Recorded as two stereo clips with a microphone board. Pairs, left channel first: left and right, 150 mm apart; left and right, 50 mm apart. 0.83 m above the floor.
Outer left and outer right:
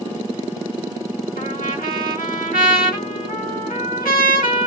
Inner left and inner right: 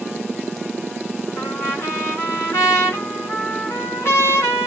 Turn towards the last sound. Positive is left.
turn(degrees=70)  # may be behind; listen again after turning